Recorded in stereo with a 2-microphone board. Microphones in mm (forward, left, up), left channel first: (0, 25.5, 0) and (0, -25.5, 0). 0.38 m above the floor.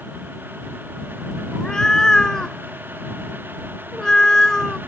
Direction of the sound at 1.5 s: 15° left (ahead or behind).